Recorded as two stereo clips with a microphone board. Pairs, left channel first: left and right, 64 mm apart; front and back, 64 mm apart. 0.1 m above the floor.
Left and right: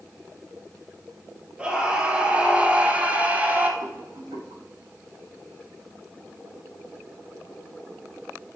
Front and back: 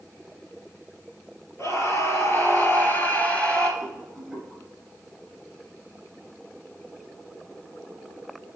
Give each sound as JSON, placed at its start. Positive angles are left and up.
{"t": 1.6, "sound": "a scream", "azimuth_deg": -20, "distance_m": 2.0}
{"t": 3.8, "sound": "a rattle", "azimuth_deg": -90, "distance_m": 4.0}